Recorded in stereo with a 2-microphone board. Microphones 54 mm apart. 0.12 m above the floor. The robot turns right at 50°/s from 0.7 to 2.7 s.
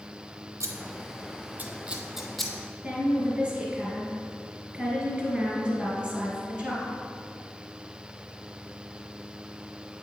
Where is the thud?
No thud in this recording.